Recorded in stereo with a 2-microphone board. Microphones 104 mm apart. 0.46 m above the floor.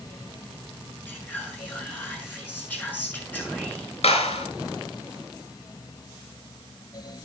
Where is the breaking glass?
I don't hear breaking glass.